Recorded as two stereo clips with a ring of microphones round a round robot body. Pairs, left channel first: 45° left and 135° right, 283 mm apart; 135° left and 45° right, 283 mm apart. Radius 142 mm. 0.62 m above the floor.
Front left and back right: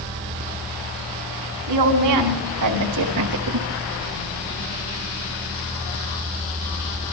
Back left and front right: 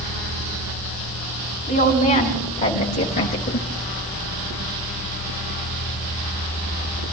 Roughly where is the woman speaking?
Behind.